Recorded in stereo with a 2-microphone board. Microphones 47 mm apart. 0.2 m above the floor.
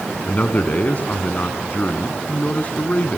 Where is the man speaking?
40° left (ahead or behind), 2 m.